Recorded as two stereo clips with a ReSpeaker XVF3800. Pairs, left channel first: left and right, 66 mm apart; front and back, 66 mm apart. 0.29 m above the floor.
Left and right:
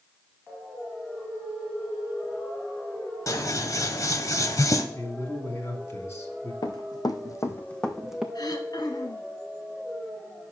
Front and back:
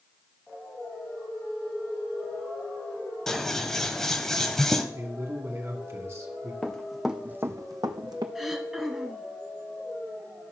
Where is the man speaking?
130° left, 2.5 m.